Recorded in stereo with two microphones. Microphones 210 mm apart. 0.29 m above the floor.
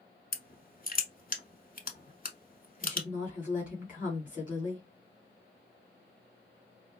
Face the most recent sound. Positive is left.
turn(degrees=40)  # may be behind; listen again after turning